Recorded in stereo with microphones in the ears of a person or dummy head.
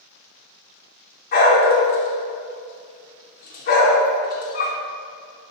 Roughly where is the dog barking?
Left.